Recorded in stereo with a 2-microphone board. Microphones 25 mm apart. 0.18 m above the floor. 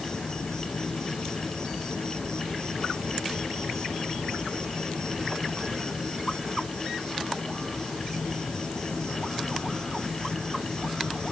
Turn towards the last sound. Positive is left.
turn(degrees=30)  # may be behind; listen again after turning